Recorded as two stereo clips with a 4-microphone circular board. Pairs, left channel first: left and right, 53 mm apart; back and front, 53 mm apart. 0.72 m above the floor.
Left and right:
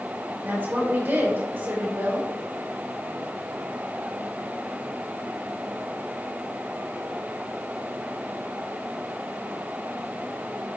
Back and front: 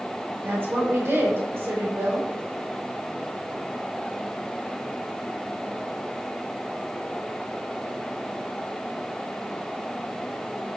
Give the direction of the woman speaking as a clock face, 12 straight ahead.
1 o'clock.